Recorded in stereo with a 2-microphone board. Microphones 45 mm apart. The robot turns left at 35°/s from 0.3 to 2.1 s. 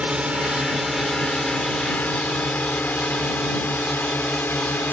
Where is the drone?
30° right (ahead or behind); by 4.9 s 55° left (ahead or behind).